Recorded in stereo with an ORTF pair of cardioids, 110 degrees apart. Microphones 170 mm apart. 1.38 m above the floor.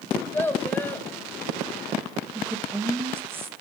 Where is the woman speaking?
15° right, 2 m.